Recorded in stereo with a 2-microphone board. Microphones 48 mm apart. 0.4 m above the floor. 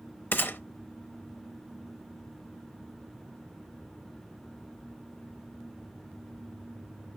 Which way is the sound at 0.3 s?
45° left (ahead or behind).